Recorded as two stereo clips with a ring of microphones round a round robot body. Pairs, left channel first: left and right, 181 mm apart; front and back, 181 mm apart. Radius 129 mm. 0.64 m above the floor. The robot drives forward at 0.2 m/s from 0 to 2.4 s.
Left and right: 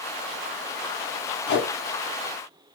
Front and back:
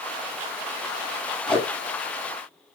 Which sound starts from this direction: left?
Tape being pulled, at 1.5 s.